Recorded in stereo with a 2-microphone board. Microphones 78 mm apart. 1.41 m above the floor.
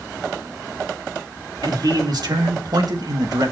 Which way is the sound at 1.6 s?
60° right (ahead or behind).